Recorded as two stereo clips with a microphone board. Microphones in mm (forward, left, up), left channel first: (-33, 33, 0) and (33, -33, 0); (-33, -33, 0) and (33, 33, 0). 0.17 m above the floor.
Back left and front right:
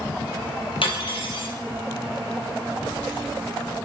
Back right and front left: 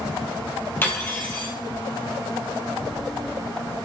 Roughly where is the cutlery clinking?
Behind left.